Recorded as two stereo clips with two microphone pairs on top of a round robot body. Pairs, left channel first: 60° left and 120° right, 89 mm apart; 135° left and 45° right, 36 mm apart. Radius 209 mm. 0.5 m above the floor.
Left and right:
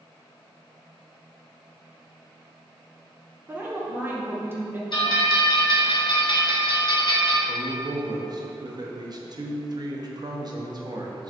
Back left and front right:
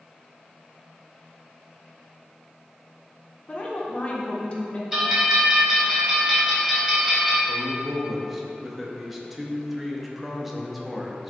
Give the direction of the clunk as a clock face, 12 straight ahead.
I don't hear a clunk.